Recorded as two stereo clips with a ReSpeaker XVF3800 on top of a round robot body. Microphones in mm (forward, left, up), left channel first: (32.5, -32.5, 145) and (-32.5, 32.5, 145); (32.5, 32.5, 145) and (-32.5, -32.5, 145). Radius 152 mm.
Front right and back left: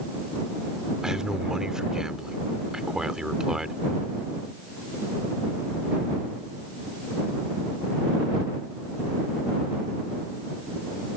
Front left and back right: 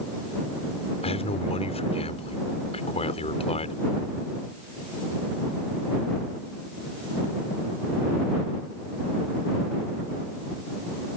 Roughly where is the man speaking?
Ahead left.